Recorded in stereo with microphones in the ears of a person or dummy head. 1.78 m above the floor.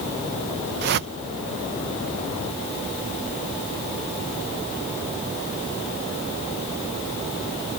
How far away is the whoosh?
About 0.7 m.